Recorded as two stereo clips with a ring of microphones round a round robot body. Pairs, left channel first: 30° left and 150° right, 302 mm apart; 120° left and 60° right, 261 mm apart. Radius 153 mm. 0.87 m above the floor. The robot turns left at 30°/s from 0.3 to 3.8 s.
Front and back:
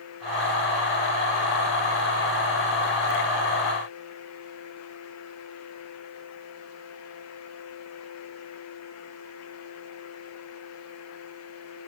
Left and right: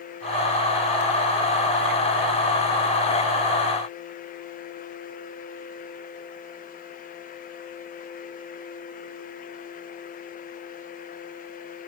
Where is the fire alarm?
No fire alarm in this recording.